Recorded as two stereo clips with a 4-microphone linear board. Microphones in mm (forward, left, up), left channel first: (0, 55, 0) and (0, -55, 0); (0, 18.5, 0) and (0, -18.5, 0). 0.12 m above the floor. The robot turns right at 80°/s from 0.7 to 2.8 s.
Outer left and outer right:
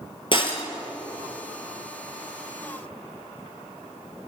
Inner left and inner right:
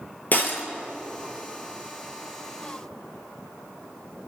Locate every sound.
0.3 s breaking glass: 45° left (ahead or behind), 1.7 m